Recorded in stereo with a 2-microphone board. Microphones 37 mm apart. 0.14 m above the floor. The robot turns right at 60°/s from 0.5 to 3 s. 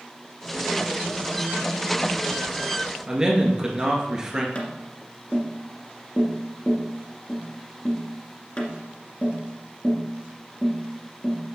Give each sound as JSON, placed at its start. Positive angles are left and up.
{"t": 3.1, "sound": "a man speaking", "side_deg": -15, "distance_m": 1.8}
{"t": 4.5, "sound": "tapping", "side_deg": 35, "distance_m": 1.7}